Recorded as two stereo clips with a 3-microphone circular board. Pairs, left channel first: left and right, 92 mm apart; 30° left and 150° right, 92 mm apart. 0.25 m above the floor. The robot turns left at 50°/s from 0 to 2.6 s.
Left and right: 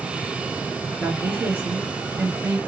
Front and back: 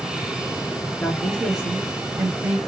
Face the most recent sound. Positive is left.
turn(degrees=-120)